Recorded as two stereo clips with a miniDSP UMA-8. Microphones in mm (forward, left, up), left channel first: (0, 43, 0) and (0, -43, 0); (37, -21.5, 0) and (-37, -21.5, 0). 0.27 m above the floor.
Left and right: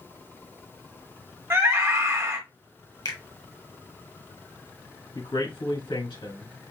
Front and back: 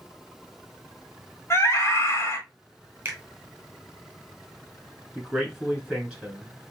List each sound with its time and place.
1.5 s a scream: 40° right, 1.4 m
3.0 s a finger snap: 120° left, 1.7 m
5.2 s a man speaking: 100° left, 3.5 m